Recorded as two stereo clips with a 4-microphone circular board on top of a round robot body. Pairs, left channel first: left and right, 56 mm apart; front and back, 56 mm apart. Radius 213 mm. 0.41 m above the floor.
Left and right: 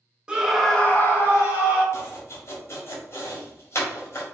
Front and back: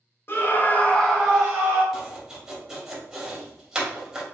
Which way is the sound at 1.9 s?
105° left.